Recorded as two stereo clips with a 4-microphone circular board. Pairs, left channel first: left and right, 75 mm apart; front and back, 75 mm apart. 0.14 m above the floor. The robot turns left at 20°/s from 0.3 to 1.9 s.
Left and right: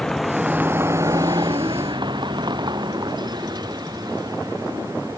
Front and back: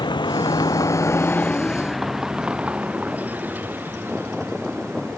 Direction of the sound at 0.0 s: 10° left.